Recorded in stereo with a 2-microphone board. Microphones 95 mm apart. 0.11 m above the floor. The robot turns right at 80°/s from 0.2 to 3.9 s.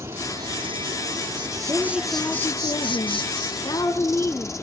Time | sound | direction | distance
0.0 | an insect | 150° right | 1.2 m
1.7 | a woman speaking | 35° right | 2.5 m